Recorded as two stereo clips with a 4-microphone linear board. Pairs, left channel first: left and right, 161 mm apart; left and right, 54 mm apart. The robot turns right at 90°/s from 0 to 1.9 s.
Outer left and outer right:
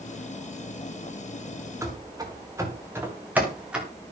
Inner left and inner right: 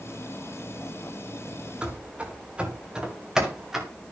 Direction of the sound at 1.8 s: 15° right (ahead or behind).